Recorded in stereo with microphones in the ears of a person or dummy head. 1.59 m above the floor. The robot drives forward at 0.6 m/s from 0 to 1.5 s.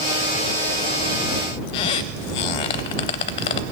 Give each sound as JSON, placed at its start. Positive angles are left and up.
{"t": 1.7, "sound": "a squeak", "side_deg": 30, "distance_m": 0.5}